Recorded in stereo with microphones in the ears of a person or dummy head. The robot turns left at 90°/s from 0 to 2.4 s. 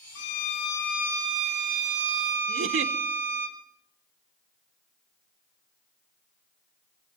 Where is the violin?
70° left, 1.7 m; by 3.5 s 130° right, 1.7 m.